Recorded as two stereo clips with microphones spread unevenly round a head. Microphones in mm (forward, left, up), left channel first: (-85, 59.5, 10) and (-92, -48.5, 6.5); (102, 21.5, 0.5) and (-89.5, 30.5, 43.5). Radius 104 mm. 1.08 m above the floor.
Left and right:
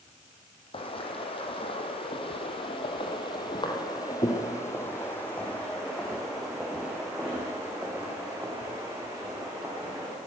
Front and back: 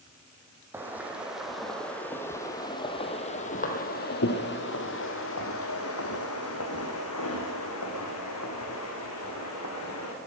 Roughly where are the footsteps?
Left.